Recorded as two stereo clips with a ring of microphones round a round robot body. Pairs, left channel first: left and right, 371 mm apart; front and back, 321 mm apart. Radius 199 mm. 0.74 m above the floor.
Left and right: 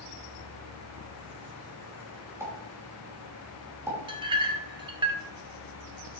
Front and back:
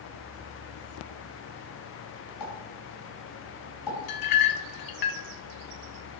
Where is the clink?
10° right, 1.1 m.